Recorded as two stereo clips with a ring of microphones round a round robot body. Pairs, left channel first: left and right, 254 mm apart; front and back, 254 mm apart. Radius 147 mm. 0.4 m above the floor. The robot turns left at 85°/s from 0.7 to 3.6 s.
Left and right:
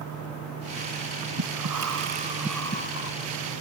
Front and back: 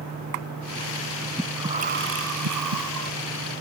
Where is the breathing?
85° right; by 3.1 s 125° left.